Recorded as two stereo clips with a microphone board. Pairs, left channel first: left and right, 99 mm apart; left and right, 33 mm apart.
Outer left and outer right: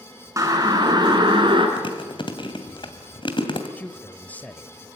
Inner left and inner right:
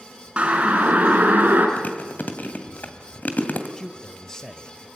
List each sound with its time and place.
0.4 s a siren: 30° right (ahead or behind), 4.5 m; by 1.7 s 50° right (ahead or behind), 5 m
1.8 s chewing: 50° left (ahead or behind), 2.5 m
3.8 s a man speaking: 15° left (ahead or behind), 1.0 m